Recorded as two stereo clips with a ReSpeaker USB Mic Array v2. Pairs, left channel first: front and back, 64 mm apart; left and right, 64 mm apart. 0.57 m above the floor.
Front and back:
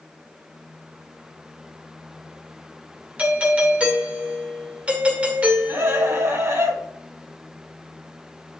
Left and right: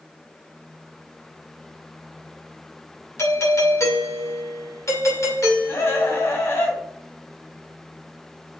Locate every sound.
3.2 s a doorbell: 115° left, 2.5 m
5.7 s a scream: 140° left, 3.5 m